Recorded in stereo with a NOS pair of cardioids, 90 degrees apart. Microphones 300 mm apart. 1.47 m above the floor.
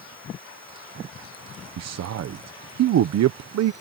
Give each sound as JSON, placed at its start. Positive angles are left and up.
{"t": 1.8, "sound": "a man speaking", "azimuth_deg": -65}